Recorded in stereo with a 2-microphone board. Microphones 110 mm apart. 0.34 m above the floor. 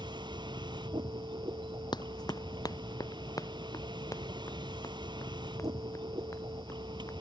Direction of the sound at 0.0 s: 50° right (ahead or behind).